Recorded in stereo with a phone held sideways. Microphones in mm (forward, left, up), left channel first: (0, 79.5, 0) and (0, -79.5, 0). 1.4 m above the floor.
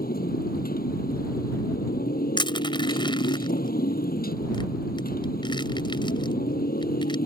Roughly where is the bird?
I don't hear a bird.